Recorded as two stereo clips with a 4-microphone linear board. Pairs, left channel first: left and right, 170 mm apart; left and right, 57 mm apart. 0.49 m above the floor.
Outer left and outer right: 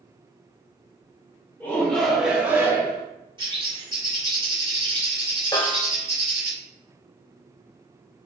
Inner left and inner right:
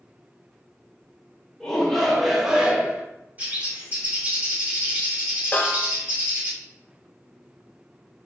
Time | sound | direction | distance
1.6 | a shout | 15° left (ahead or behind) | 1.3 m
3.4 | a bird | 30° right (ahead or behind) | 1.5 m
5.5 | a snare drum | 30° left (ahead or behind) | 0.7 m